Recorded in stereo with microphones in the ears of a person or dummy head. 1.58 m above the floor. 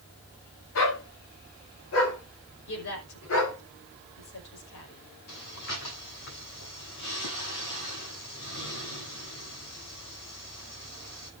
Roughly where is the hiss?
No hiss in this recording.